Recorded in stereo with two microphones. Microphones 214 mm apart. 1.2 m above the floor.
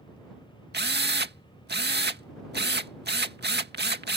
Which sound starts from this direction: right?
A drill, at 0.7 s.